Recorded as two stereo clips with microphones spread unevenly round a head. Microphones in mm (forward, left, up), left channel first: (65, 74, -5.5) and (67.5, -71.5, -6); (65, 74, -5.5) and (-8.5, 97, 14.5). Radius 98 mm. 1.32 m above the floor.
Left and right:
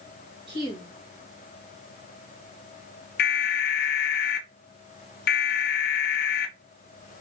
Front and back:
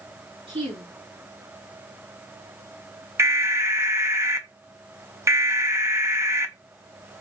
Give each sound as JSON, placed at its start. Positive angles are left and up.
{"t": 0.5, "sound": "a woman speaking", "azimuth_deg": -155, "distance_m": 2.0}
{"t": 3.2, "sound": "an alarm", "azimuth_deg": 100, "distance_m": 0.9}